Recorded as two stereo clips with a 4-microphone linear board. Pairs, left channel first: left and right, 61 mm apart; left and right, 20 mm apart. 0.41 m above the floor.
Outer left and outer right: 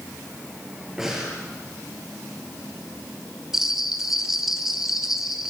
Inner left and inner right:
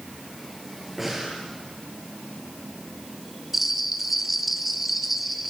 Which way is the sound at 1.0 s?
5° right (ahead or behind).